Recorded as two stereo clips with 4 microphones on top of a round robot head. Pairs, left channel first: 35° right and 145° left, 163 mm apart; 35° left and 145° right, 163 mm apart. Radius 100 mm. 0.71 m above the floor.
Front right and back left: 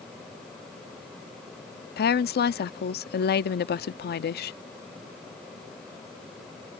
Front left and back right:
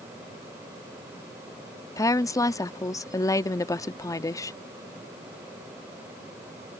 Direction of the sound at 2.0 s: 35° right.